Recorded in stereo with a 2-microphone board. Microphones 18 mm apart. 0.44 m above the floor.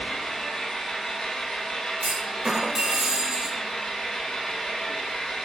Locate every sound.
0.0 s an engine running: 65° left (ahead or behind), 0.9 m
2.0 s a clunk: 30° right (ahead or behind), 0.6 m